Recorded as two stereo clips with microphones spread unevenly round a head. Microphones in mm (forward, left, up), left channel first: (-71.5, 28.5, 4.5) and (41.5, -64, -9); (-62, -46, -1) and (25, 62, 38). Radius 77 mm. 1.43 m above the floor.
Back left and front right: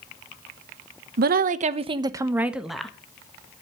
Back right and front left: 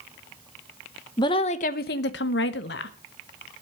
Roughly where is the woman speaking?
Ahead right.